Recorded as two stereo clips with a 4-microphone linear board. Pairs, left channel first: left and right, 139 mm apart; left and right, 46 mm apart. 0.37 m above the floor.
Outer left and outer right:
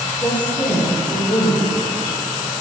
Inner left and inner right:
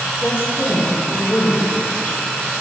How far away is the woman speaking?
About 3 m.